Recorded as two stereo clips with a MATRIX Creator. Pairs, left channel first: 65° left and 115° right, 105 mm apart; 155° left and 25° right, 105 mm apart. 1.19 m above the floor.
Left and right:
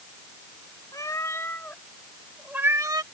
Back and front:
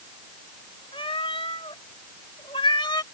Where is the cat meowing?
125° left; by 3.0 s 155° right.